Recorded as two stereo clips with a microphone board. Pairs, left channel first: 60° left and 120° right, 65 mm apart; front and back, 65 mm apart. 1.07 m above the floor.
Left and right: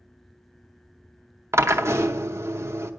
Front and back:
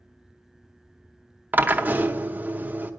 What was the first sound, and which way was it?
A drill, 130° right.